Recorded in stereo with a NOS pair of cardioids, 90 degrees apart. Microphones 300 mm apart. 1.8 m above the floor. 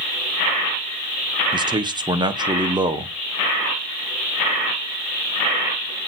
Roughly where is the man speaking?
Ahead.